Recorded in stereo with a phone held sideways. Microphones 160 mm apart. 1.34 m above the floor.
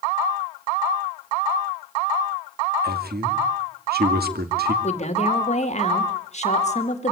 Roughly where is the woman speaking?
Left.